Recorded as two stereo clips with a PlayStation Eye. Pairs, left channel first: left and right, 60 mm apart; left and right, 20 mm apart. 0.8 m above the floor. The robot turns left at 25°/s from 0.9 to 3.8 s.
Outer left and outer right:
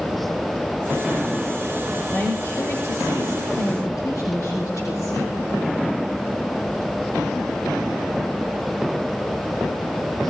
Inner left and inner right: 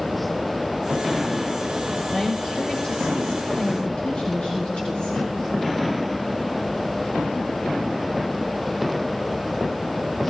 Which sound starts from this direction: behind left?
A woman speaking, at 2.1 s.